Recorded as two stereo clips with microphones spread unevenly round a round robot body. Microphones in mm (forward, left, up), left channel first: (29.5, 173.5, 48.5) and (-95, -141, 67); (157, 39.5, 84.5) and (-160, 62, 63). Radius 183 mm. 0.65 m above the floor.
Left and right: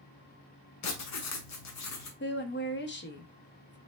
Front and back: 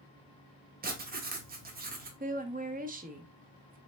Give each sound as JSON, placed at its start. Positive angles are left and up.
{"t": 0.8, "sound": "writing", "azimuth_deg": 110, "distance_m": 1.0}
{"t": 2.2, "sound": "a woman speaking", "azimuth_deg": 120, "distance_m": 0.8}